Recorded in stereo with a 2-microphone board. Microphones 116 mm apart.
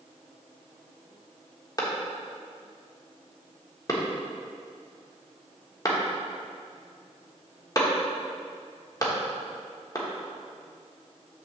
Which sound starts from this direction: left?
A clap, at 1.8 s.